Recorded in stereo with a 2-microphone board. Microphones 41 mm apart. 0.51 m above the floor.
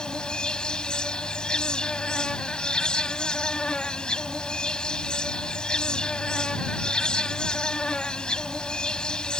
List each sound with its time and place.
0.0 s an insect: 25° left (ahead or behind)